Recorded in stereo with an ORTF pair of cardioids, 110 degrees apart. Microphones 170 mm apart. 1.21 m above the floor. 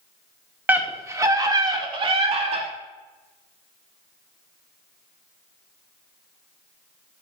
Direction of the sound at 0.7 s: 10° right.